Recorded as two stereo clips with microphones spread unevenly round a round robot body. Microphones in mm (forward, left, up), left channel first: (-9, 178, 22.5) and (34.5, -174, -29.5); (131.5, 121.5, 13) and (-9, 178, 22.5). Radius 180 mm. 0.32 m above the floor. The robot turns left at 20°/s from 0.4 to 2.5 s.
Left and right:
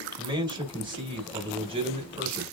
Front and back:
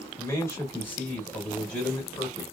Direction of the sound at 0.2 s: 55° right.